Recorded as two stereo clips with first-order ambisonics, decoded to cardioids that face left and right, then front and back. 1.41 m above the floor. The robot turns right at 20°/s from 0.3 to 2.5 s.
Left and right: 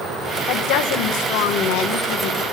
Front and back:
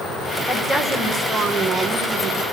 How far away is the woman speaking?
About 1.3 m.